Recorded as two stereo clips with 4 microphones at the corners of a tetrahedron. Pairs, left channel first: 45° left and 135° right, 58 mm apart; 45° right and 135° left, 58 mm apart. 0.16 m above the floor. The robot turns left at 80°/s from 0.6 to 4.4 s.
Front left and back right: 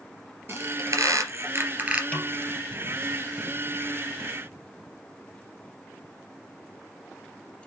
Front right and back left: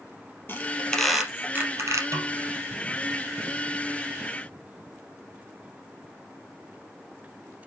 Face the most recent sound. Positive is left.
turn(degrees=-65)